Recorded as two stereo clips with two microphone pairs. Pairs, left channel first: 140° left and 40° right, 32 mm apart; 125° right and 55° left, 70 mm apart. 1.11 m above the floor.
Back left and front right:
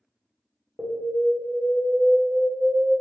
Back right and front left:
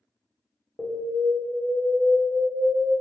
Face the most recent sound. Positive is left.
turn(degrees=5)